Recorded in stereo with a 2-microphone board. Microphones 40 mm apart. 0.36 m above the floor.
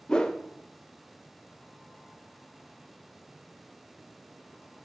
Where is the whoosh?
20° left (ahead or behind), 0.6 m.